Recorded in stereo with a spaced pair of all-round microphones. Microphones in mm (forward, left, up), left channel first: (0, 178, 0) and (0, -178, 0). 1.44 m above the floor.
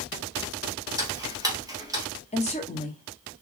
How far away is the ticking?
About 0.9 m.